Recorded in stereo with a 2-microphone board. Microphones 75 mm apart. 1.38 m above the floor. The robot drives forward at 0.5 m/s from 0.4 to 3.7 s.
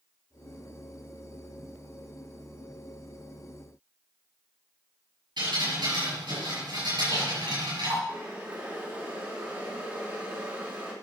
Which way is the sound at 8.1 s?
30° right (ahead or behind).